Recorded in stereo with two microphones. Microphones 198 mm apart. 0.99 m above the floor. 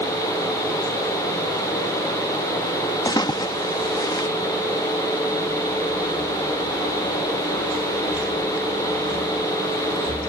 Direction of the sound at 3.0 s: 20° left (ahead or behind).